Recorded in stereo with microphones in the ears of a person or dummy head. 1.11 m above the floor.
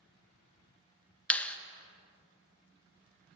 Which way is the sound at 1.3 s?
10° left (ahead or behind).